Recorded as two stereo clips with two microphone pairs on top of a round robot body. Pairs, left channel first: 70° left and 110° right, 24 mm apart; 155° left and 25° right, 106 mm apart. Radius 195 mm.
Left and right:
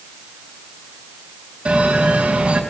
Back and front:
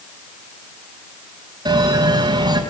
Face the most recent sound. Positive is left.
turn(degrees=-75)